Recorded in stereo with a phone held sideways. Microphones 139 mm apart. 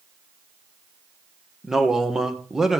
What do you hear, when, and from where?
1.6 s a man speaking: 5° right (ahead or behind), 1.5 m